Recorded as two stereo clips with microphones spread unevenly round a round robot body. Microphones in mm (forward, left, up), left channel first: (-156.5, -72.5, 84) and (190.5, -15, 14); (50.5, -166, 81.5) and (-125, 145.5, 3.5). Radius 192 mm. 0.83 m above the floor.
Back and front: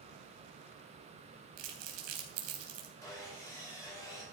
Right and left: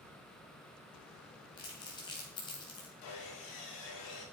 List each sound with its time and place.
1.6 s crumpling: 20° left, 3 m
3.0 s sawing: 85° right, 6.5 m